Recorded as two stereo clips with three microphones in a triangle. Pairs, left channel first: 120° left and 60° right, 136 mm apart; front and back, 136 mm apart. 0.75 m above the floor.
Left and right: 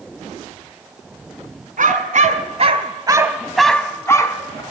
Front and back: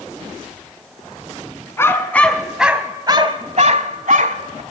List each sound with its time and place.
1.8 s a dog barking: 70° right, 2 m; by 4.6 s 175° left, 2 m